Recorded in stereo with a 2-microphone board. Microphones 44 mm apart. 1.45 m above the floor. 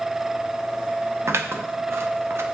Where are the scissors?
80° right, 1.0 m.